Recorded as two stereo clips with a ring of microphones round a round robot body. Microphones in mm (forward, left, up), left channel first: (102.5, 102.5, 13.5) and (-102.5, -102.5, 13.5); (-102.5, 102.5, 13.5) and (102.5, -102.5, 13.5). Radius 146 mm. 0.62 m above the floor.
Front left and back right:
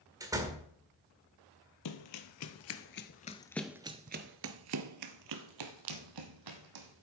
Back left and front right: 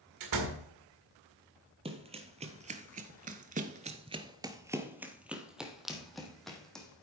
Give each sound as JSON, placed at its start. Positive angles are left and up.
{"t": 0.2, "sound": "a door slam", "azimuth_deg": -55, "distance_m": 1.8}
{"t": 1.9, "sound": "running footsteps", "azimuth_deg": 25, "distance_m": 1.3}